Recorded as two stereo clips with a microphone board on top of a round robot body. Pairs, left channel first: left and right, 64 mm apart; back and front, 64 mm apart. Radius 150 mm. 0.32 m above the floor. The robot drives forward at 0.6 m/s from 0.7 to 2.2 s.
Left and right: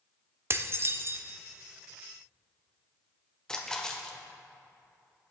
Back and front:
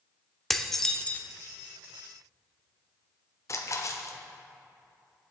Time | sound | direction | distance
0.5 | dishes clattering | 95° right | 0.9 m
3.5 | a splash | 165° left | 1.4 m